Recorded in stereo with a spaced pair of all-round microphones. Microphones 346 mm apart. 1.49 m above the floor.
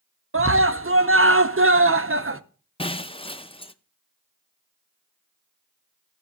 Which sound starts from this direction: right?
A scream, at 0.3 s.